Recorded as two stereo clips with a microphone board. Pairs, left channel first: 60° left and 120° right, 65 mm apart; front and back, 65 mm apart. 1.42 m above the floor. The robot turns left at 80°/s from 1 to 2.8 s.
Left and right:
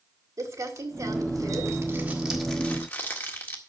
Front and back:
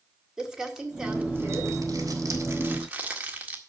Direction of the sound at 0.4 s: 100° right.